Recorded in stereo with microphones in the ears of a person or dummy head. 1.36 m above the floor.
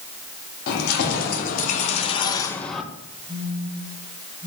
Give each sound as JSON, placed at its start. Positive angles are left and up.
{"t": 0.7, "sound": "keys jangling", "side_deg": 60, "distance_m": 1.9}
{"t": 3.3, "sound": "a phone buzzing", "side_deg": -65, "distance_m": 5.5}